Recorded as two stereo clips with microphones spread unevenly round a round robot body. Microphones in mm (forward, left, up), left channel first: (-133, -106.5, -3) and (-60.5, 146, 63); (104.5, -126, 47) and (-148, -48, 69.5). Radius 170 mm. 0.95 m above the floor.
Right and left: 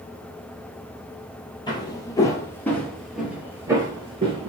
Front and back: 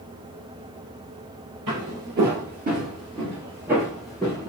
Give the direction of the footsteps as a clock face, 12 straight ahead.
6 o'clock.